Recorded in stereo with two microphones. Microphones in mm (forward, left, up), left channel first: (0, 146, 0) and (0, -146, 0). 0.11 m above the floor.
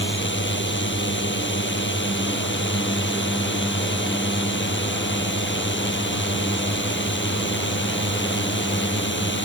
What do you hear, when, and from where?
0.0 s a drone: 40° left (ahead or behind)